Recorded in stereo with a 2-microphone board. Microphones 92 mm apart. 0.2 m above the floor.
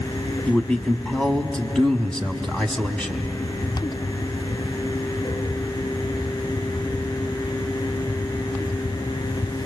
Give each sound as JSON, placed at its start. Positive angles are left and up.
{"t": 0.5, "sound": "a man speaking", "side_deg": 10, "distance_m": 1.1}